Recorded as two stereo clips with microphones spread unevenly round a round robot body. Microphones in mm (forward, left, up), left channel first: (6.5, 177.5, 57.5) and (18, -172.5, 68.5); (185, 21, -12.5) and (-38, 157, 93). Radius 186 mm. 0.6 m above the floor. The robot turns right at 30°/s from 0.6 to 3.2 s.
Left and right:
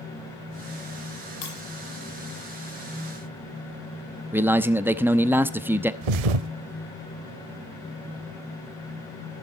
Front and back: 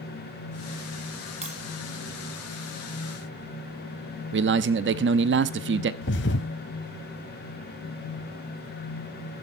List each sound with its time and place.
1.4 s breaking glass: 80° left, 9.5 m; by 1.6 s 90° left, 9.5 m
4.3 s a man speaking: 170° right, 0.9 m
6.0 s a thud: 95° right, 0.9 m